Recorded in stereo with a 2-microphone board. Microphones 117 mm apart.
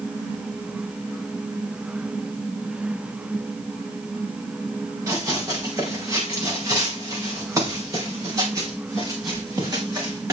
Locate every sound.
5.1 s running footsteps: 25° right (ahead or behind), 3 m; by 10.3 s 30° right (ahead or behind), 6 m